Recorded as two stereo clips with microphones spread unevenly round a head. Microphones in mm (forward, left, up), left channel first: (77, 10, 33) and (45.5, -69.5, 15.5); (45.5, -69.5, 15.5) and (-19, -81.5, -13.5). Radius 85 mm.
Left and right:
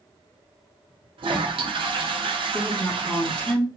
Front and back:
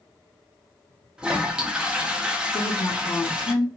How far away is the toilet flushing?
About 0.9 m.